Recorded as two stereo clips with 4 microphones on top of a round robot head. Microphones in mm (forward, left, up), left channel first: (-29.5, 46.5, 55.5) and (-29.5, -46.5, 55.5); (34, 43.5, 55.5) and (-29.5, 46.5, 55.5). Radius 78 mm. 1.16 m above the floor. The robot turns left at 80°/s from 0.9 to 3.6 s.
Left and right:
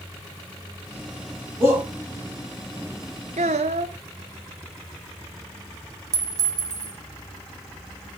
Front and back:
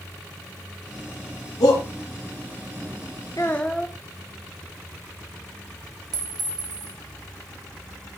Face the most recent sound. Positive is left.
turn(degrees=-145)